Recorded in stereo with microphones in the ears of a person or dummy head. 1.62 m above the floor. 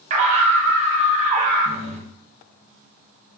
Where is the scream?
45° right (ahead or behind), 0.8 m.